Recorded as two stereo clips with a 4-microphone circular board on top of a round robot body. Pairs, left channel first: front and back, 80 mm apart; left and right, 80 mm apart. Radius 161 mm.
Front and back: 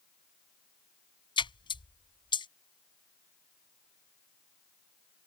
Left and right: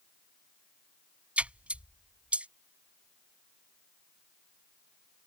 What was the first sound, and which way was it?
A splash, 15° right.